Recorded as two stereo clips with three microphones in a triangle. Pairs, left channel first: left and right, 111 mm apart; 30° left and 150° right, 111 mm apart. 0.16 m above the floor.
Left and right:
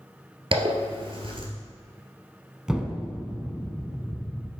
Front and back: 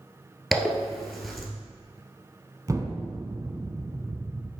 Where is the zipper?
60° right, 1.5 m.